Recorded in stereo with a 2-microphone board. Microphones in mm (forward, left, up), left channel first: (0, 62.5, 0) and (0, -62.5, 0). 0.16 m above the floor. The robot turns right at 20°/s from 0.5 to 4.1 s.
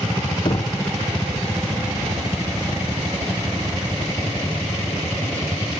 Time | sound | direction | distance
0.5 | knocking | 35° left (ahead or behind) | 0.9 m